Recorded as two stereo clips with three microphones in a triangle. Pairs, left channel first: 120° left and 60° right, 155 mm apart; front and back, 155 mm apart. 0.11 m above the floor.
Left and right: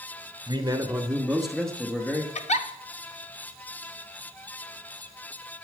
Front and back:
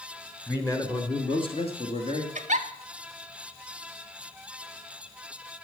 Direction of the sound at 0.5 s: 65° right.